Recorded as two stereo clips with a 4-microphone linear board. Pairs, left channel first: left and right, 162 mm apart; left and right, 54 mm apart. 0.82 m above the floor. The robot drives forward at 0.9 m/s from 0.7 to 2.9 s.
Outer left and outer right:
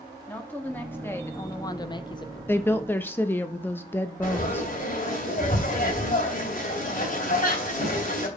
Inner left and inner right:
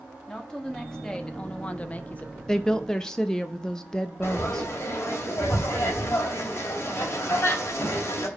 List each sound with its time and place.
0.3 s a woman speaking: 10° left (ahead or behind), 1.4 m; by 2.4 s 25° left (ahead or behind), 0.6 m
2.5 s a woman speaking: 15° left (ahead or behind), 0.6 m
4.2 s frying: 55° left (ahead or behind), 2.5 m